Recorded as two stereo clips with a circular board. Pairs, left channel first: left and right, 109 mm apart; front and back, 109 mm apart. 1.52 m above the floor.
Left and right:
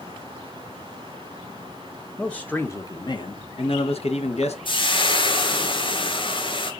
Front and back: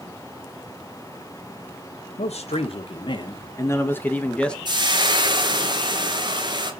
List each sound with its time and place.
2.2 s a man speaking: 5° left, 1.2 m; by 4.5 s 85° left, 1.8 m
4.7 s frying: 130° left, 1.8 m